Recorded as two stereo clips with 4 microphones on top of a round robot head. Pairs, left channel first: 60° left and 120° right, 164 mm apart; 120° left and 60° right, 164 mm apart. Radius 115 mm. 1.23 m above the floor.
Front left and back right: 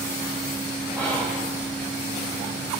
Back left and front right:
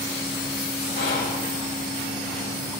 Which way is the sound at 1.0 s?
160° left.